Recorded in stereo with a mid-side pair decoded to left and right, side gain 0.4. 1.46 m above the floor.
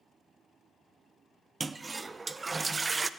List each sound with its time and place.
1.6 s a toilet flushing: 30° right, 0.6 m